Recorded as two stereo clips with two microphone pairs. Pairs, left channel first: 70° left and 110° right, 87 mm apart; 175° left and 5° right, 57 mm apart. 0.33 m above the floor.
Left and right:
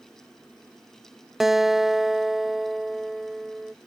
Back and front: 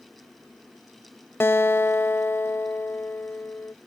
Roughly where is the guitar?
Behind.